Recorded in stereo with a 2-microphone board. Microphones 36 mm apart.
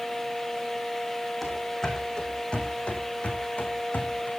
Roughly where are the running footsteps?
Centre.